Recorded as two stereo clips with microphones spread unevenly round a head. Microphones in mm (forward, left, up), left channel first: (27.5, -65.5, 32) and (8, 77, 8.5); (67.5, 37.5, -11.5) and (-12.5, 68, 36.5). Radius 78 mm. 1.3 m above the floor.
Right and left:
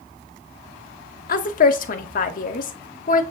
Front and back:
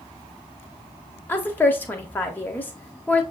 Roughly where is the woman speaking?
Ahead right.